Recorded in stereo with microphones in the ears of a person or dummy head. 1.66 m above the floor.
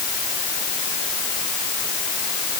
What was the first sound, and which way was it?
Only background noise.